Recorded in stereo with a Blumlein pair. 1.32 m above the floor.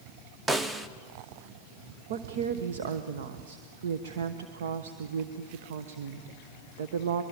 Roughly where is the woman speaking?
Ahead right.